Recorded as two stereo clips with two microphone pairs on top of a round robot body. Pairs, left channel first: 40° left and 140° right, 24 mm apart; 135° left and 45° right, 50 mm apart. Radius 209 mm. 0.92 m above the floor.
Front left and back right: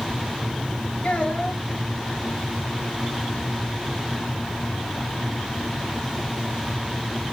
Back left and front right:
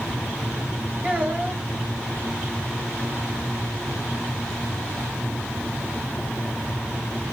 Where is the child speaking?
10° left, 3.5 m.